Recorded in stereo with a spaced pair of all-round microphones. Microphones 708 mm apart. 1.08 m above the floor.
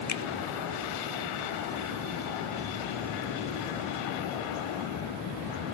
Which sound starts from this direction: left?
A finger snap, at 0.1 s.